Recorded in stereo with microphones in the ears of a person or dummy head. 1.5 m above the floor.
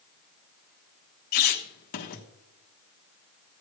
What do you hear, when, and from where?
1.3 s a squeak: 45° left (ahead or behind), 1.3 m